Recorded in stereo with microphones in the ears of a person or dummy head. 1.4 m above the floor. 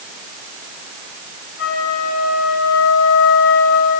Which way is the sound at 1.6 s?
75° left (ahead or behind).